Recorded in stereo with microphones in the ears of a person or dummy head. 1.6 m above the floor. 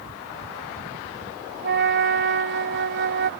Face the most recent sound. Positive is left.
turn(degrees=-65)  # may be behind; listen again after turning